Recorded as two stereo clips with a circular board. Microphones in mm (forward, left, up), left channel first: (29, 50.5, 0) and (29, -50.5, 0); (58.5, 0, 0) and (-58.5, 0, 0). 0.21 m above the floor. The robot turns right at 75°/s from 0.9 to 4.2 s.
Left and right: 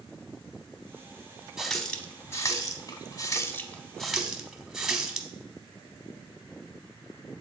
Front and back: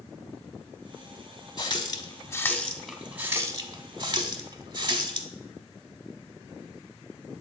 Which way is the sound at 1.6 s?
10° right.